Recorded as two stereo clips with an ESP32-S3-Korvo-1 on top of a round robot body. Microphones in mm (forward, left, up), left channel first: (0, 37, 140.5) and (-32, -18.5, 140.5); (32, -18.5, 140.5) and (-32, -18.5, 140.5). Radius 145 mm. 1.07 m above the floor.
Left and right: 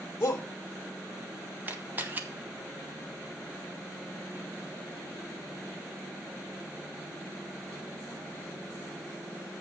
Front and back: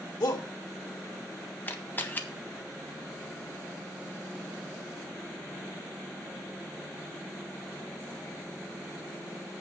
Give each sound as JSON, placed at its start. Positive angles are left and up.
{"t": 0.2, "sound": "a shout", "azimuth_deg": 5, "distance_m": 1.6}
{"t": 1.7, "sound": "a camera shutter", "azimuth_deg": -60, "distance_m": 1.4}